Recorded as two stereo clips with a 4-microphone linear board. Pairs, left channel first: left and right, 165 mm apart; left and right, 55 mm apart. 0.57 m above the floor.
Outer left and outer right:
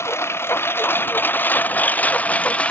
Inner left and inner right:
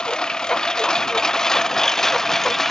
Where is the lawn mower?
15° left (ahead or behind); by 2.7 s 5° left (ahead or behind).